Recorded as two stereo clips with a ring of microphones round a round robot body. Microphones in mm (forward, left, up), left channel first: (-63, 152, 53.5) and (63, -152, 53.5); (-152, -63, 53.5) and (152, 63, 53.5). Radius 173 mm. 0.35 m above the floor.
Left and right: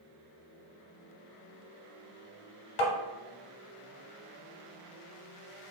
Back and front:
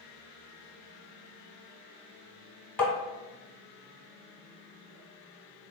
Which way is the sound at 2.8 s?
120° left.